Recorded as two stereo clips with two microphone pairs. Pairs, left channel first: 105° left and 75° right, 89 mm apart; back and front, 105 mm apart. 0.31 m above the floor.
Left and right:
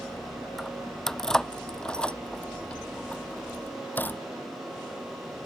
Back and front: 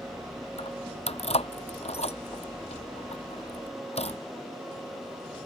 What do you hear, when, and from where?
0.6 s keys jangling: 170° right; by 4.2 s 175° left